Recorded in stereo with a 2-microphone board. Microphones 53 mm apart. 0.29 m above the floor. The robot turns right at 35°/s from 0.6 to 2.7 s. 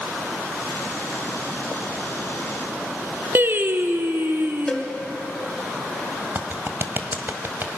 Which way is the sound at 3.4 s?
40° right (ahead or behind).